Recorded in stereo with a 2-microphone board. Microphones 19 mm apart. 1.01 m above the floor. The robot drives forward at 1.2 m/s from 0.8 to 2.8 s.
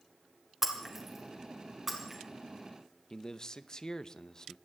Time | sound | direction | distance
0.6 | breaking glass | 20° right (ahead or behind) | 2.5 m
3.1 | a man speaking | 40° left (ahead or behind) | 0.7 m